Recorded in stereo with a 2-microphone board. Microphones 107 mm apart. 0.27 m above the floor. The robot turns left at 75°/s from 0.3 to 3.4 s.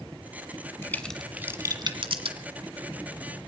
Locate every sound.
0.8 s a crack: 25° left (ahead or behind), 1.4 m; by 2.4 s 65° right (ahead or behind), 1.4 m